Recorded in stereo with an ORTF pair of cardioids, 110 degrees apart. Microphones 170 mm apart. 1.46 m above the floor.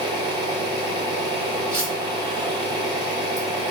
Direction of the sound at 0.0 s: 25° right.